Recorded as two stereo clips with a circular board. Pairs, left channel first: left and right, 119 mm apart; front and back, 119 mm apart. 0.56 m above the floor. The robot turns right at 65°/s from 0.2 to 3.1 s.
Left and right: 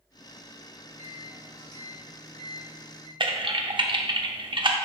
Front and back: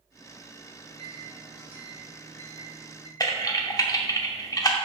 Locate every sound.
0.8 s a microwave: 170° right, 2 m; by 3.1 s 20° right, 2 m
3.2 s typing on a keyboard: 50° right, 0.6 m